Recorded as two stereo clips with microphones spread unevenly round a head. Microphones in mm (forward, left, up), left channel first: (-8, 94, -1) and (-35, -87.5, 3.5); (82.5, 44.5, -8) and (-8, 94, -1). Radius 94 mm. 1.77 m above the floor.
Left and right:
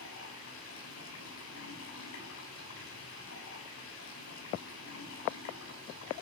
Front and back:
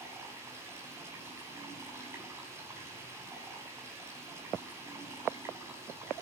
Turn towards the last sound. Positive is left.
turn(degrees=90)